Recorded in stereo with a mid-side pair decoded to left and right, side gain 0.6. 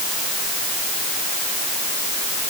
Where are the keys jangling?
I don't hear keys jangling.